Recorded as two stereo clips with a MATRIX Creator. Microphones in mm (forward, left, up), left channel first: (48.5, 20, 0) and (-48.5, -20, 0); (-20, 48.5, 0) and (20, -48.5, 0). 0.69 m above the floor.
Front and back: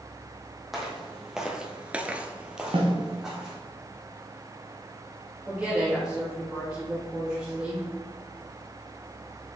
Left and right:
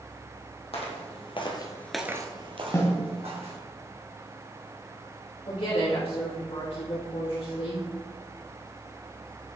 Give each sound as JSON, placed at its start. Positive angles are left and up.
{"t": 0.7, "sound": "footsteps", "azimuth_deg": 115, "distance_m": 1.9}
{"t": 2.7, "sound": "a snare drum", "azimuth_deg": 175, "distance_m": 1.1}
{"t": 5.5, "sound": "a woman speaking", "azimuth_deg": 120, "distance_m": 2.0}